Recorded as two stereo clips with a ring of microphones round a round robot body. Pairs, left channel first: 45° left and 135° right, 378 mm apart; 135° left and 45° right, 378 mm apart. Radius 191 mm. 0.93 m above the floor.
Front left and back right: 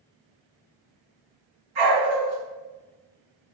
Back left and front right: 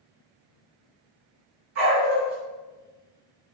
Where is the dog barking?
105° right, 1.6 m.